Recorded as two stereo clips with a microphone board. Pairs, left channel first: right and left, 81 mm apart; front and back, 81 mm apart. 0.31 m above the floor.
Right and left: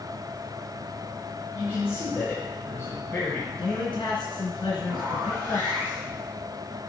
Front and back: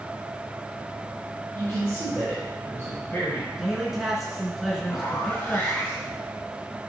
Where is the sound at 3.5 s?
90° right, 3 m.